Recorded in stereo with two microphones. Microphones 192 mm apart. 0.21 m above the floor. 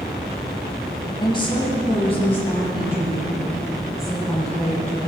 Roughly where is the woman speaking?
Left.